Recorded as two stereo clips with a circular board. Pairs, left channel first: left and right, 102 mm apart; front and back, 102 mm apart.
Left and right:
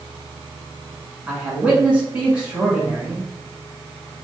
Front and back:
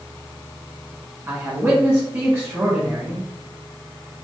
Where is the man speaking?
150° right, 1.3 m.